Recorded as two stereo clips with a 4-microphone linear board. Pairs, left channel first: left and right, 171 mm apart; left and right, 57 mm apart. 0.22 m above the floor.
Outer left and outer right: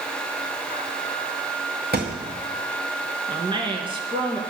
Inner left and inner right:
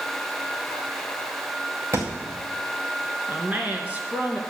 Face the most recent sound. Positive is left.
turn(degrees=-30)  # may be behind; listen again after turning